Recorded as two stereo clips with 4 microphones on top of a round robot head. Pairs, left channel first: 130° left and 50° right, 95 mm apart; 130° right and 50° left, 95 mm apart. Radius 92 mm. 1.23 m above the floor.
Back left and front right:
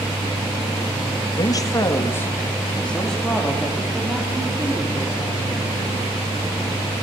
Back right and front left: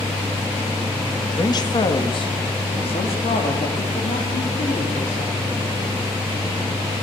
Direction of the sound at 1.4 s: Straight behind.